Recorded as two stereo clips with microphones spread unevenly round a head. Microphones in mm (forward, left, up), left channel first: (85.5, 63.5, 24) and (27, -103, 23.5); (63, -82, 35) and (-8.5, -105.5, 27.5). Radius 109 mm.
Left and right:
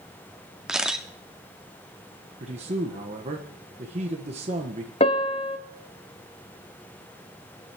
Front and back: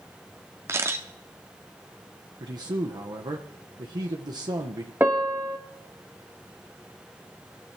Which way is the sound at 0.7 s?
165° left.